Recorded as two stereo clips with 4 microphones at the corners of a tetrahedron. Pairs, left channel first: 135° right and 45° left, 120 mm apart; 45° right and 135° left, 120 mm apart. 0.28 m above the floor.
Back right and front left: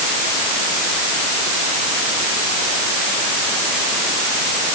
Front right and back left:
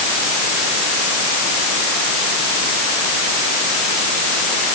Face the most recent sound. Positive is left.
No sound to turn to.